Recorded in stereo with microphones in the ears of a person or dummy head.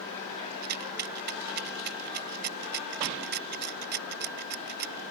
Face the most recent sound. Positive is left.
turn(degrees=-50)  # may be behind; listen again after turning